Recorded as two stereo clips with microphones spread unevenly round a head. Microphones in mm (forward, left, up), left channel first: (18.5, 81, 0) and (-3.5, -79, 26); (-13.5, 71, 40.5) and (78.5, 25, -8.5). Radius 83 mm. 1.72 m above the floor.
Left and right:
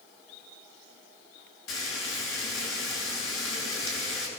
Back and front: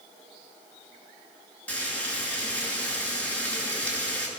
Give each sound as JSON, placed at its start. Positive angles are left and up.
{"t": 1.7, "sound": "frying", "azimuth_deg": 80, "distance_m": 8.0}